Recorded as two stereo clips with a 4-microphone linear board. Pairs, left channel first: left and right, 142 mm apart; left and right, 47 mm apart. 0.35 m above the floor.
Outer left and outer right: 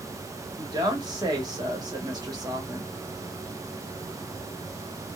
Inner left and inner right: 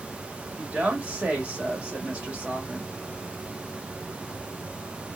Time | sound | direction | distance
0.6 | a woman speaking | 30° right (ahead or behind) | 1.3 m